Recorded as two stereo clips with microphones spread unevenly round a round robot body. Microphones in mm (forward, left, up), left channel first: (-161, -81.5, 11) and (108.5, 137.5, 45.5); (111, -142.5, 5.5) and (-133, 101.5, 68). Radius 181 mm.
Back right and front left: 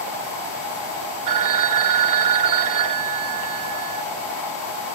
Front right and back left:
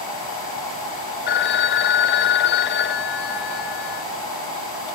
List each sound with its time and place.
1.3 s a phone ringing: 5° left, 0.6 m